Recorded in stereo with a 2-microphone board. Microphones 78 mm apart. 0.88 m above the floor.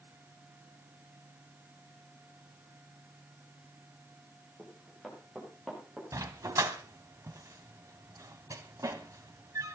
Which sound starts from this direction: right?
A dog barking, at 6.1 s.